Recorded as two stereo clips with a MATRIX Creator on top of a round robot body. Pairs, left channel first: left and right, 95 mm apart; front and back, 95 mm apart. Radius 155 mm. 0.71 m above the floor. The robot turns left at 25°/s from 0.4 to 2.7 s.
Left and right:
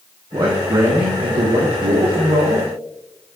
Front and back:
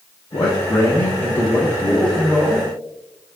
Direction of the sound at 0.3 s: 40° right.